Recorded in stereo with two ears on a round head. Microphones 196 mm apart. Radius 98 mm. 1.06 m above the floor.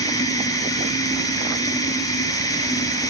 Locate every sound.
0.0 s running water: 15° left (ahead or behind), 3 m